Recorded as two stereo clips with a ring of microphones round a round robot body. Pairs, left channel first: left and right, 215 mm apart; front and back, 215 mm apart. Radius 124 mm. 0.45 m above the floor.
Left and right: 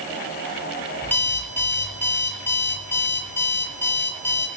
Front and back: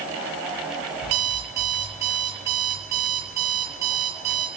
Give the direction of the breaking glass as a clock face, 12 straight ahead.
I don't hear breaking glass.